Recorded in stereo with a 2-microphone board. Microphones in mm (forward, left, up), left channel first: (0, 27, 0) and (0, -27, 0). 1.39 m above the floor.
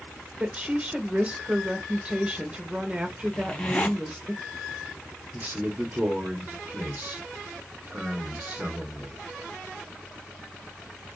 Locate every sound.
0.4 s a woman speaking: 20° right (ahead or behind), 0.9 m
3.3 s a zipper: 25° left (ahead or behind), 1.0 m
5.3 s a man speaking: 30° right (ahead or behind), 0.7 m